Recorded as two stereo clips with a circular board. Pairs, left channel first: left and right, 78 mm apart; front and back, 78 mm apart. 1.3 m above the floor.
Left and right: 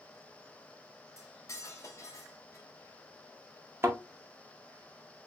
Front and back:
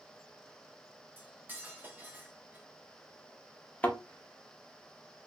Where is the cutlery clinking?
125° left, 0.8 m.